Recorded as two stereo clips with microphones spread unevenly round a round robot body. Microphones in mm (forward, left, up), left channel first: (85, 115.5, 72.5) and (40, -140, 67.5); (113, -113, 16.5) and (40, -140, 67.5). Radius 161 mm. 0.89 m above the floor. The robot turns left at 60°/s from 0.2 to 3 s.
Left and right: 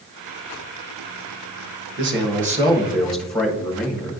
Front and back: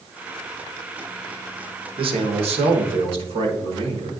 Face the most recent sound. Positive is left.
turn(degrees=170)